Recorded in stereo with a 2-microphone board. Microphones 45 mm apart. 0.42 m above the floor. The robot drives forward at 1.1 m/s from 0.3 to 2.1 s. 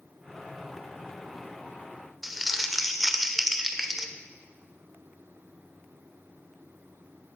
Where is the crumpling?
5° right (ahead or behind), 0.6 m.